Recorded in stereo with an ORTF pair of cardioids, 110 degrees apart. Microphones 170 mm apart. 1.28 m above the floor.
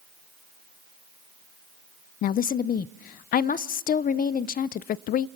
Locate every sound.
2.2 s a woman speaking: 60° left, 0.5 m